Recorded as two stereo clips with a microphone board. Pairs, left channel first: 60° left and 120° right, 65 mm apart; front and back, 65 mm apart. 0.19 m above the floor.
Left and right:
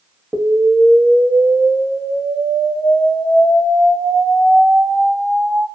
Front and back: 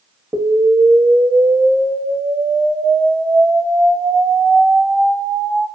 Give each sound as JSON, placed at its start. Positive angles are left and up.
{"t": 0.3, "sound": "an explosion", "azimuth_deg": 175, "distance_m": 0.5}